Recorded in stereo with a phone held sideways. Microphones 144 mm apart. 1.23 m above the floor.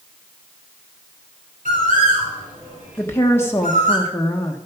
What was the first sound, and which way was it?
A bird, 70° right (ahead or behind).